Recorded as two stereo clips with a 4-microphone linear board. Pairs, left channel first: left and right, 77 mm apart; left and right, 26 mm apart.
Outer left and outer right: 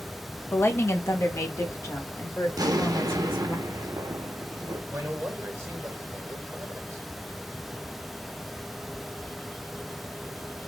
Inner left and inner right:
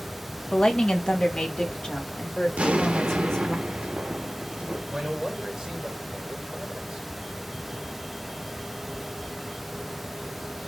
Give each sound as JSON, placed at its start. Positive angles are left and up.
{"t": 0.5, "sound": "a woman speaking", "side_deg": 30, "distance_m": 0.7}
{"t": 2.6, "sound": "an explosion", "side_deg": -60, "distance_m": 0.6}
{"t": 4.9, "sound": "a man speaking", "side_deg": -35, "distance_m": 1.6}